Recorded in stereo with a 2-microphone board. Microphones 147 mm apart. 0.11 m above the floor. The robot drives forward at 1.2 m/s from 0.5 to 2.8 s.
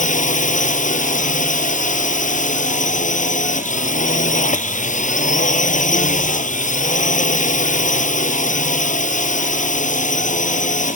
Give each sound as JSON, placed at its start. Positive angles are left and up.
{"t": 0.0, "sound": "a drone", "side_deg": 60}